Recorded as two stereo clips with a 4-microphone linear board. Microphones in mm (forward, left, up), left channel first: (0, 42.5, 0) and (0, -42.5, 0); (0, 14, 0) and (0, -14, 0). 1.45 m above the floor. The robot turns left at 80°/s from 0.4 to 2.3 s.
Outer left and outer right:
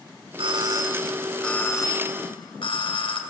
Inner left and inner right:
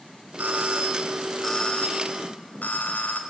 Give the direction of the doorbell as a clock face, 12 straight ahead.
3 o'clock.